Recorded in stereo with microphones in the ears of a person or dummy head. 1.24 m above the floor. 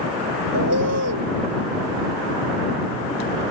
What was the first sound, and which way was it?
A bird, 65° right (ahead or behind).